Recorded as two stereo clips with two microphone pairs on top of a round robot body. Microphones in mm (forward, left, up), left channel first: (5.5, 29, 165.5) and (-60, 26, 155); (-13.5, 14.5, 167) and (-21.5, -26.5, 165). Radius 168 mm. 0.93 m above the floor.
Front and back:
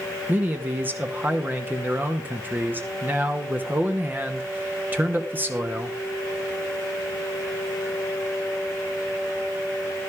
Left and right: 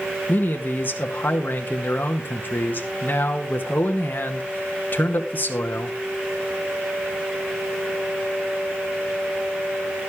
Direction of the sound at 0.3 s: 125° left.